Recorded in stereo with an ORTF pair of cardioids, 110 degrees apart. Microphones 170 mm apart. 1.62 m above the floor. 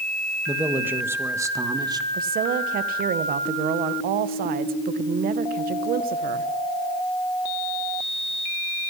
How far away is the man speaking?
About 2.5 m.